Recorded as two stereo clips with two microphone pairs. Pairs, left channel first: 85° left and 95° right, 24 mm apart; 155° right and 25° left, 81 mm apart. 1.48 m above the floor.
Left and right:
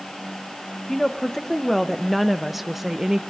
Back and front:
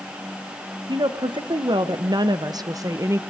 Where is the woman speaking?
10° left, 1.6 m; by 3.2 s 35° right, 0.7 m.